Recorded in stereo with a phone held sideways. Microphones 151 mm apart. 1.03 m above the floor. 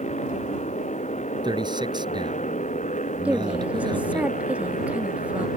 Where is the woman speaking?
10° right (ahead or behind).